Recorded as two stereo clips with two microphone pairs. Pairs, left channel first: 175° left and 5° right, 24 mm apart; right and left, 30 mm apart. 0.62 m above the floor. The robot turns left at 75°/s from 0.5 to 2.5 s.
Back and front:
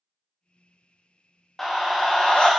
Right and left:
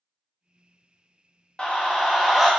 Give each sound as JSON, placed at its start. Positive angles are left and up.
{"t": 1.6, "sound": "a scream", "azimuth_deg": -110, "distance_m": 0.6}